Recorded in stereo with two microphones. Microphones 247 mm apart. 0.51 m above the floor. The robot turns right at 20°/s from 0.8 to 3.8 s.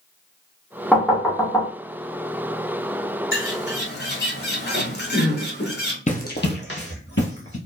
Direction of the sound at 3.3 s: 55° left (ahead or behind).